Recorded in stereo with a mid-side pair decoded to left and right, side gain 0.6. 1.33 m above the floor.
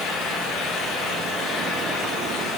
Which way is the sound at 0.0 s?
65° left.